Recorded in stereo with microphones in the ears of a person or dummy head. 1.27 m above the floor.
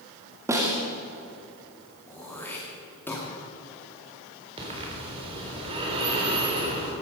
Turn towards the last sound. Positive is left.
turn(degrees=-30)  # may be behind; listen again after turning